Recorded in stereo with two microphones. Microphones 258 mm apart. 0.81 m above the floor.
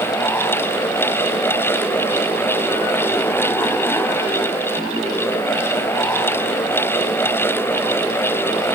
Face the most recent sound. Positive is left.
No sound to turn to.